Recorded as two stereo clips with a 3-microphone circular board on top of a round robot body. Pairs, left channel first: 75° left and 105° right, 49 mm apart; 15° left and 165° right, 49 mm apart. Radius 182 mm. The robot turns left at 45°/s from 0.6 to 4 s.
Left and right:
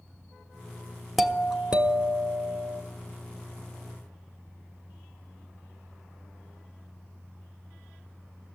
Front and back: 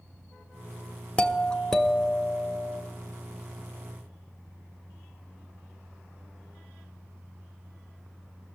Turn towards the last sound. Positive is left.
turn(degrees=-150)